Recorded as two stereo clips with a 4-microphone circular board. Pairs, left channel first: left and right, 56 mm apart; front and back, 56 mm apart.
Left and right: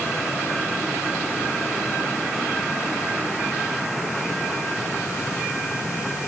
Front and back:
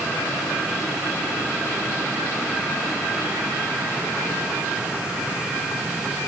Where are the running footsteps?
No running footsteps in this recording.